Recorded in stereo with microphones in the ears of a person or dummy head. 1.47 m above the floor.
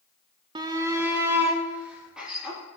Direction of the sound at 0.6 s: 25° right (ahead or behind).